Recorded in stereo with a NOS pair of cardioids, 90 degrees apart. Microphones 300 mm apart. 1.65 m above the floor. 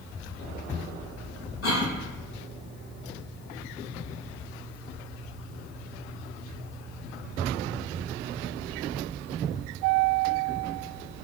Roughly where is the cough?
Ahead left.